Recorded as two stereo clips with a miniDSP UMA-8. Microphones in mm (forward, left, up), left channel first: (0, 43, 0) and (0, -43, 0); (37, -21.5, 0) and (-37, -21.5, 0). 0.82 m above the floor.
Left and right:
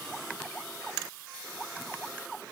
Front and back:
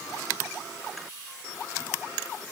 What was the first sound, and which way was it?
Only background noise.